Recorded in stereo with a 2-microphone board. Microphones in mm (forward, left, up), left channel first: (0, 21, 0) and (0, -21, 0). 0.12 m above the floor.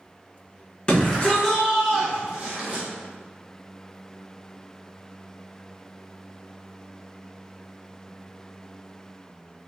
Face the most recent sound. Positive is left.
turn(degrees=-25)  # may be behind; listen again after turning